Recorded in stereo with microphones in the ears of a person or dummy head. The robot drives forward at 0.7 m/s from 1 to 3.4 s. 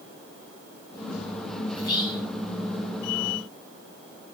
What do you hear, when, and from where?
1.7 s whispering: 30° left (ahead or behind), 1.5 m; by 2.3 s 25° left (ahead or behind), 1.8 m